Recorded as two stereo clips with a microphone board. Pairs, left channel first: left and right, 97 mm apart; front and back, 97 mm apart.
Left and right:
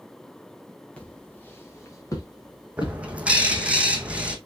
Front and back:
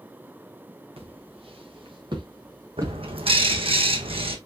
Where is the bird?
165° right, 1.3 m.